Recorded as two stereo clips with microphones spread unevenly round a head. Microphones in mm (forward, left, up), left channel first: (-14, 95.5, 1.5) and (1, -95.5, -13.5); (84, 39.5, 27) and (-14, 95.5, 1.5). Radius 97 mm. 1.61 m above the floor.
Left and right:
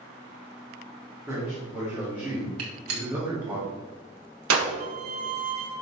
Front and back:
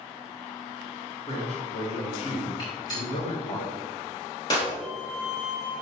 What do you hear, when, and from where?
1.3 s a man speaking: straight ahead, 3.5 m; by 3.6 s 5° right, 2.0 m
2.6 s a gunshot: 100° right, 2.5 m
4.8 s a violin: 105° right, 1.5 m